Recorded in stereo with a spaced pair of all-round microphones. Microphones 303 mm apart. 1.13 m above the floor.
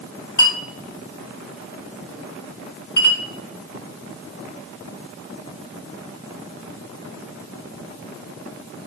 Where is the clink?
80° left, 1.8 m.